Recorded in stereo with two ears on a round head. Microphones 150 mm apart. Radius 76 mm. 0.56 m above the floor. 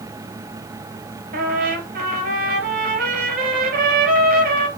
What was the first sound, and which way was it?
A trumpet, 60° right (ahead or behind).